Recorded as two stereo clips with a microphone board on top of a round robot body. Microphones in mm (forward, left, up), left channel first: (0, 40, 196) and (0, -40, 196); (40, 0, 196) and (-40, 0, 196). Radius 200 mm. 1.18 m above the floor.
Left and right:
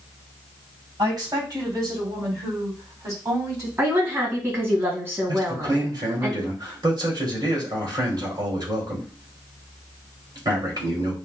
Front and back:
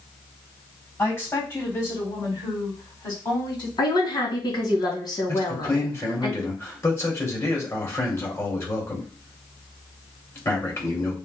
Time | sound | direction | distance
1.0 | a woman speaking | 60° right | 3 m
3.8 | a woman speaking | 30° right | 2.5 m
5.3 | a man speaking | 55° right | 2.5 m